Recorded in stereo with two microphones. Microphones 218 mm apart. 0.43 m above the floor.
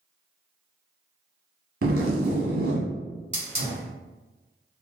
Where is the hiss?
30° right (ahead or behind), 1.7 m.